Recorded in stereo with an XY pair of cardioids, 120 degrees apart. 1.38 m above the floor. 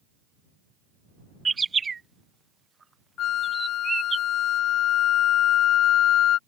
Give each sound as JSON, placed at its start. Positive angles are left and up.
{"t": 1.4, "sound": "a bird", "azimuth_deg": -25}
{"t": 3.2, "sound": "a flute", "azimuth_deg": 60}